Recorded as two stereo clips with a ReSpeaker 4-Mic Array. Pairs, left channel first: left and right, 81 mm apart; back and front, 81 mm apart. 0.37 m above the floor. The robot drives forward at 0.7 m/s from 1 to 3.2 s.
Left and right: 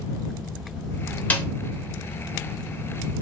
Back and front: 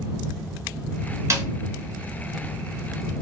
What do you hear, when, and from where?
1.3 s a snare drum: 30° left, 0.7 m; by 1.5 s 35° left, 0.6 m